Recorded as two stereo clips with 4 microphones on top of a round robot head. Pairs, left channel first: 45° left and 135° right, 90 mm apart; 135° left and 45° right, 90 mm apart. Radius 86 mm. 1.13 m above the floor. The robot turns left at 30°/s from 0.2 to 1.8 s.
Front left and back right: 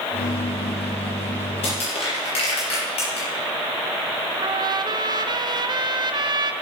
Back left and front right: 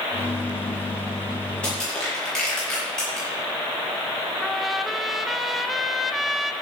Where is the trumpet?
135° right, 0.9 m.